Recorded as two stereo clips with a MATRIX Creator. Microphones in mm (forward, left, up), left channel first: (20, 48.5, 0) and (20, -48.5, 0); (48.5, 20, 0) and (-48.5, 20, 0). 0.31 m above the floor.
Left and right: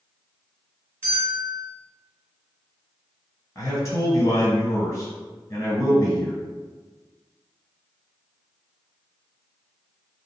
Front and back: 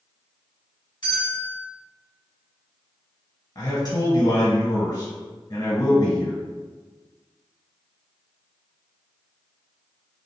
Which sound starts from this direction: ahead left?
A man speaking, at 3.5 s.